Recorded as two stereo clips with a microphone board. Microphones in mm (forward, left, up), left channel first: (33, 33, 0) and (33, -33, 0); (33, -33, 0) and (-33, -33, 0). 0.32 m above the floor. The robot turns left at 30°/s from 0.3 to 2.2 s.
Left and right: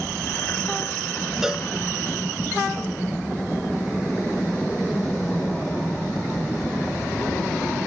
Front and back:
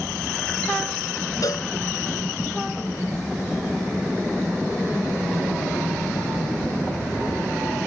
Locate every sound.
1.4 s a cowbell: 5° right; by 1.7 s 15° right